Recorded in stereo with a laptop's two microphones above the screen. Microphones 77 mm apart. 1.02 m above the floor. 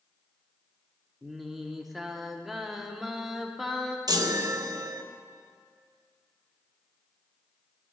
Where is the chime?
55° right (ahead or behind), 0.6 m.